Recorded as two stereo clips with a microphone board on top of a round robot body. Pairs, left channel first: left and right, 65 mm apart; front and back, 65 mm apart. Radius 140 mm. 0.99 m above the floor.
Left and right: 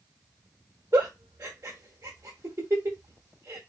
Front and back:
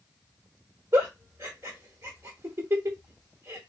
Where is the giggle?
145° right, 0.8 m.